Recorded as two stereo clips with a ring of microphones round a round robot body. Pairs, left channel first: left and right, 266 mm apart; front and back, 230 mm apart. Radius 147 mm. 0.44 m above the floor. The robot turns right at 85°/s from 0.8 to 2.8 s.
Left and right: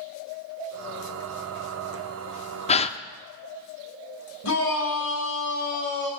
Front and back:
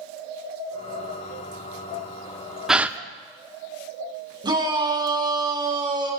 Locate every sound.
2.7 s a gasp: 95° left, 0.6 m; by 3.0 s 105° left, 0.6 m
4.4 s a shout: 110° left, 4 m